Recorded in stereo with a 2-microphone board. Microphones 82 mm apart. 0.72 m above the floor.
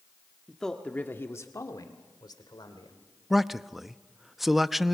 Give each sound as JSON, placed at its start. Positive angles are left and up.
{"t": 0.5, "sound": "a man speaking", "side_deg": 0, "distance_m": 1.2}
{"t": 3.3, "sound": "a man speaking", "side_deg": 0, "distance_m": 0.5}